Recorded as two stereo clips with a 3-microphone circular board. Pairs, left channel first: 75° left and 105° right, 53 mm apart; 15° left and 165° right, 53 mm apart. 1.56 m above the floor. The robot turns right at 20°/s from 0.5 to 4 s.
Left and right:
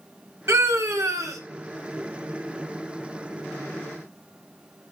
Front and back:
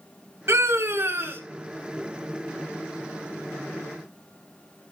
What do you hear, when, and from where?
0.5 s a scream: 135° right, 1.8 m; by 1.4 s 115° right, 1.8 m